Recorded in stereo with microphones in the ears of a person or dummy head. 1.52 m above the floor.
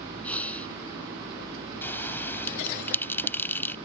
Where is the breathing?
10° left (ahead or behind).